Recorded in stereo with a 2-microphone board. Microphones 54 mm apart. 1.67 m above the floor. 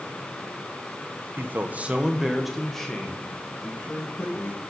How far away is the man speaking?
About 0.8 m.